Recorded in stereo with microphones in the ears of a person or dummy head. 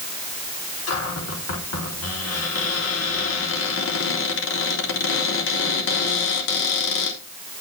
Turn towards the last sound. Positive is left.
turn(degrees=70)  # may be behind; listen again after turning